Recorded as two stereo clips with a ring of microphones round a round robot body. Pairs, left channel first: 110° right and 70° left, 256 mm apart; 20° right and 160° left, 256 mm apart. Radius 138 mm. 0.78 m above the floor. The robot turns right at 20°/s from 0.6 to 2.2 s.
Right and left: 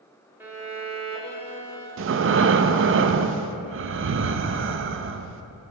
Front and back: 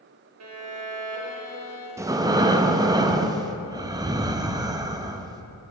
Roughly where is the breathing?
Left.